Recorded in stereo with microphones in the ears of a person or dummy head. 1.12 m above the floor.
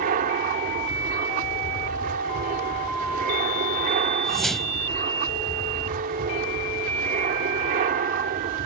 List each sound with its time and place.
0.0 s an aircraft: 45° right (ahead or behind)
4.2 s a whoosh: centre (ahead or behind)